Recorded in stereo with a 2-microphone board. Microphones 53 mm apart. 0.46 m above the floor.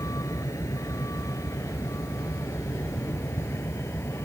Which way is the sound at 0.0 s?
80° left.